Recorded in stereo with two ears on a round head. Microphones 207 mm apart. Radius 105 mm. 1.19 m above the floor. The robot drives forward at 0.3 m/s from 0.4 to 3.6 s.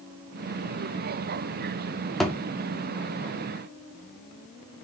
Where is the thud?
Centre (ahead or behind), 0.7 m.